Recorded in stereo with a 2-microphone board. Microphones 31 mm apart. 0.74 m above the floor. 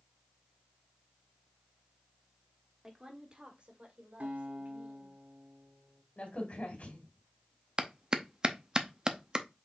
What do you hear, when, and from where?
2.8 s a woman speaking: 15° right (ahead or behind), 1.6 m; by 5.1 s 55° right (ahead or behind), 3 m
4.2 s a guitar: 55° right (ahead or behind), 1.4 m
6.2 s a crack: 45° left (ahead or behind), 2.5 m
7.8 s a clap: 25° right (ahead or behind), 0.6 m